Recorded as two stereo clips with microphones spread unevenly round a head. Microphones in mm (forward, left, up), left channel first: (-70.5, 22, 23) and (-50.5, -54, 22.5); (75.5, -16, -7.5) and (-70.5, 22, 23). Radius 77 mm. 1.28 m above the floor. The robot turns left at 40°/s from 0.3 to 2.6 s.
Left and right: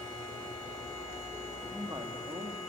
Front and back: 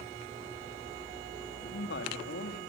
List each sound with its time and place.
1.6 s a man speaking: straight ahead, 2.5 m; by 2.6 s 40° right, 2.5 m